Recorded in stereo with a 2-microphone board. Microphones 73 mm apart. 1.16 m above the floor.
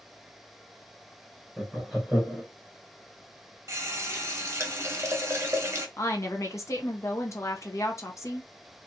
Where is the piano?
I don't hear a piano.